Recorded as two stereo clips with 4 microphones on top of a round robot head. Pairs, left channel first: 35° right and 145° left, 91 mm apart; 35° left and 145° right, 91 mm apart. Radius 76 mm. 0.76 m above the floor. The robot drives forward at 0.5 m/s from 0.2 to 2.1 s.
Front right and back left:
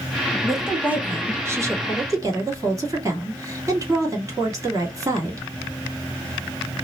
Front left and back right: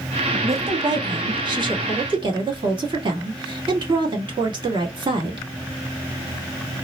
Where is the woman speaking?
125° right, 0.6 m; by 5.5 s 165° right, 1.2 m.